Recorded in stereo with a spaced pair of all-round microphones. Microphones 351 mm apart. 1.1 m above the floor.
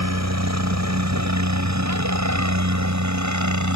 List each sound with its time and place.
0.0 s a helicopter: 50° right (ahead or behind); by 3.8 s 55° right (ahead or behind)